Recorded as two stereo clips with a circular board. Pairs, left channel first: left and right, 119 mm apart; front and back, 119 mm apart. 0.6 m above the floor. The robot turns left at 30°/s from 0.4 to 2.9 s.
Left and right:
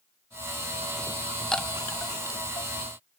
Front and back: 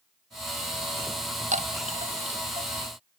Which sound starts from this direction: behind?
A chime, at 1.5 s.